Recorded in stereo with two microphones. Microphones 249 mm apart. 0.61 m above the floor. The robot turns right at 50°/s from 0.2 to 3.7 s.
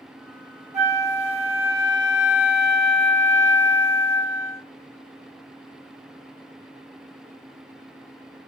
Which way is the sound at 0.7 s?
30° right (ahead or behind).